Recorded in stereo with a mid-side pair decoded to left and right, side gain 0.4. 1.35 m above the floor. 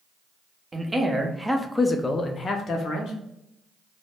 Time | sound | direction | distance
0.7 | a man speaking | 25° right | 0.9 m